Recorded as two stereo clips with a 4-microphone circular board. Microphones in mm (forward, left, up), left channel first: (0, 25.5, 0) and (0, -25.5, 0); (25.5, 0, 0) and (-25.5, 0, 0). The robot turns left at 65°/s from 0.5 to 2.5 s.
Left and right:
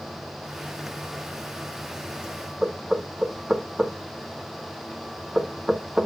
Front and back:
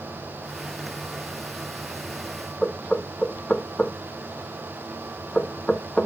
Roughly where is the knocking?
Ahead right.